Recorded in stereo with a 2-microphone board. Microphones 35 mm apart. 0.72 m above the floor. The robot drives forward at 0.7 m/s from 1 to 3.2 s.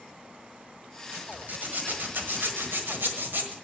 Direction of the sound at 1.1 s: 50° right (ahead or behind).